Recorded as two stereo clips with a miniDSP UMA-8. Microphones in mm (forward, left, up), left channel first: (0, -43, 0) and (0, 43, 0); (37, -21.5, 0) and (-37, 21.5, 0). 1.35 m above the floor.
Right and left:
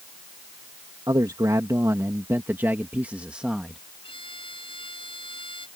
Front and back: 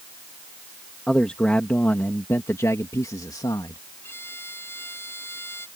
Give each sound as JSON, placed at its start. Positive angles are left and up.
{"t": 1.1, "sound": "a man speaking", "azimuth_deg": 50}
{"t": 4.0, "sound": "a violin", "azimuth_deg": -95}